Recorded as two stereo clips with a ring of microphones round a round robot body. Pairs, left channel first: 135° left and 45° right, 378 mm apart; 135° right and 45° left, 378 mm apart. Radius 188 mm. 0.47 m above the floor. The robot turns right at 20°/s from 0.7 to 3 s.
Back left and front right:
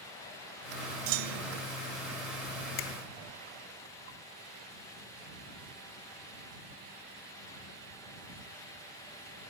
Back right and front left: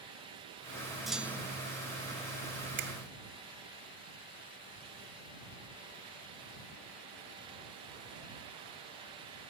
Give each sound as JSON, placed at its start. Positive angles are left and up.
{"t": 1.1, "sound": "a clunk", "azimuth_deg": -45}
{"t": 2.8, "sound": "a finger snap", "azimuth_deg": 110}